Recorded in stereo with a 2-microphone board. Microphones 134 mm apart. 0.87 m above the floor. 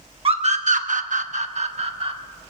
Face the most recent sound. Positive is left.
turn(degrees=-45)  # may be behind; listen again after turning